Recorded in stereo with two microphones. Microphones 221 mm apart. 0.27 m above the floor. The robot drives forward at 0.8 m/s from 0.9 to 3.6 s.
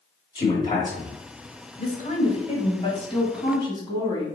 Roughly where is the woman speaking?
Left.